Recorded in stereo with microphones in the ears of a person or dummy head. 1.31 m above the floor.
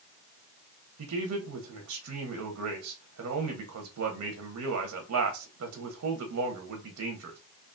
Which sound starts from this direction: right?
A man speaking, at 1.0 s.